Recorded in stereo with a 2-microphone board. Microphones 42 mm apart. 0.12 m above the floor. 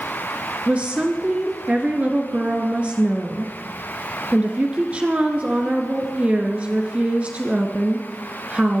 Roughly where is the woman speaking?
Right.